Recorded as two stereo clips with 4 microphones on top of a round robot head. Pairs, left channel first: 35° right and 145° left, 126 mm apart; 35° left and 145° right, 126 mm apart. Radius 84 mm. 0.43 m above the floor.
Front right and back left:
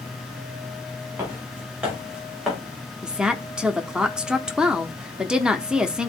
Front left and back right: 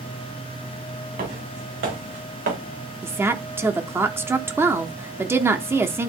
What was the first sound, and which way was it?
Footsteps, 140° right.